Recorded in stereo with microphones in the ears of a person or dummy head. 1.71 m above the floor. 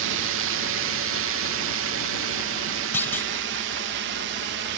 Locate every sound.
0.0 s a drone: 70° right (ahead or behind); by 4.8 s 60° right (ahead or behind)
2.9 s a clunk: 10° left (ahead or behind)